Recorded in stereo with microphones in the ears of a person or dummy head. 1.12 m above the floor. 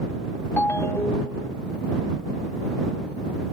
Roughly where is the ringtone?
Centre.